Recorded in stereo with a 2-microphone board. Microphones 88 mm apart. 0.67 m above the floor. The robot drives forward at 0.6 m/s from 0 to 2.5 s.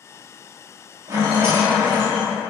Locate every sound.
1.1 s a rattle: 35° right (ahead or behind), 0.9 m; by 2.3 s 20° right (ahead or behind), 1.4 m